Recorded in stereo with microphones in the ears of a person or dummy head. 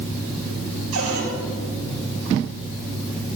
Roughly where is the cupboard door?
Right.